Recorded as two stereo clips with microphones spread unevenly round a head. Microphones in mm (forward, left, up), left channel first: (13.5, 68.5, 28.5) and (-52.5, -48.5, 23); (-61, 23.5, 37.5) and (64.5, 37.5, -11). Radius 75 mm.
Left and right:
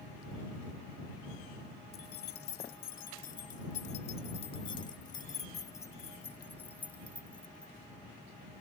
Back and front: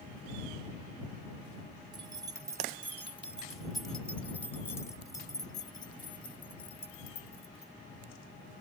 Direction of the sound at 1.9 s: 65° left.